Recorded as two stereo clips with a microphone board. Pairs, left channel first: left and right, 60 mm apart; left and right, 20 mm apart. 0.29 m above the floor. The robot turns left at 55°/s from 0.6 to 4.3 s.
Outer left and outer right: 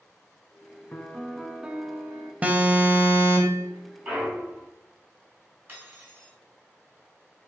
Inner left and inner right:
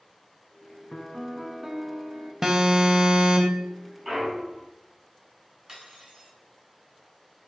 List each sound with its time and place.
0.9 s a piano: 30° left, 0.5 m; by 2.3 s 50° right, 0.5 m
2.4 s an alarm: 35° right, 0.8 m; by 3.7 s 105° right, 0.8 m
4.0 s a clunk: 20° right (ahead or behind), 2 m; by 4.7 s 35° right (ahead or behind), 2 m
5.7 s cutlery clinking: 35° right (ahead or behind), 1.5 m